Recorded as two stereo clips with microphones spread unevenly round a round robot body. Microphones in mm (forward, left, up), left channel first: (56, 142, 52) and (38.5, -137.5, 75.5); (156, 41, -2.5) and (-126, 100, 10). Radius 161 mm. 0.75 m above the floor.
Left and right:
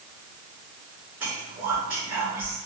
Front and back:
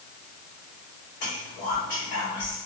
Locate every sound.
1.2 s whispering: 65° right, 1.8 m